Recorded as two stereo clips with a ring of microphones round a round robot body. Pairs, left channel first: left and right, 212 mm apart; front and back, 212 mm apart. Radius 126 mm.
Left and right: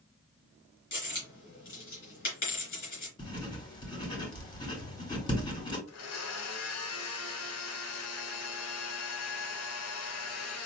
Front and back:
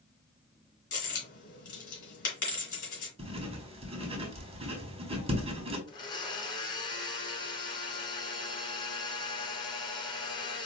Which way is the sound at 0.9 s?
35° left.